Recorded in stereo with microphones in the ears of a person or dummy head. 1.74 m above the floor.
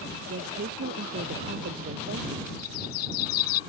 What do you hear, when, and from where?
0.3 s a woman speaking: 50° right (ahead or behind)
2.6 s a bird: 50° left (ahead or behind)